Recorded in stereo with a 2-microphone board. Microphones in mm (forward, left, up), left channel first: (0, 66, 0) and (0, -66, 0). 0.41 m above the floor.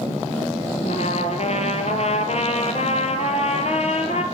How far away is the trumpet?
About 2.5 m.